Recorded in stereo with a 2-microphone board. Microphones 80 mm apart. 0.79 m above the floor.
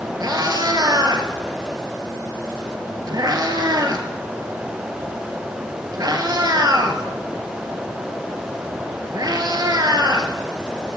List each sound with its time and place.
0.2 s a cat meowing: 55° right (ahead or behind), 1.4 m